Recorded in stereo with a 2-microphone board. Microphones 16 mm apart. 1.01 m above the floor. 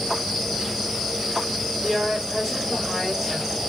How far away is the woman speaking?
About 4 m.